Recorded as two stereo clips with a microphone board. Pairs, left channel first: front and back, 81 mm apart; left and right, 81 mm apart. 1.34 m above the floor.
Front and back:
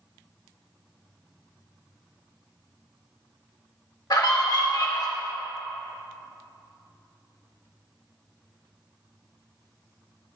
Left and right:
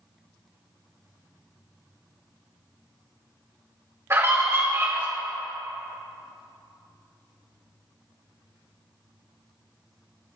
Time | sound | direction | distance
4.1 | a scream | 35° right | 1.8 m